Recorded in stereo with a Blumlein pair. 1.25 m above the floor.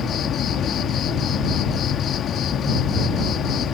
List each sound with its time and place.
0.0 s an insect: 25° left